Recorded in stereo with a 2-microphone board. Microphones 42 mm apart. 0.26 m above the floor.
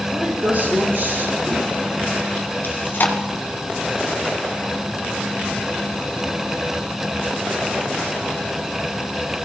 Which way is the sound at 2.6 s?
60° left (ahead or behind).